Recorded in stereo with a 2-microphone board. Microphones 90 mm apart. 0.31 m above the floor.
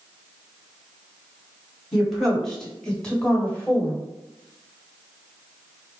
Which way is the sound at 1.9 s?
Centre (ahead or behind).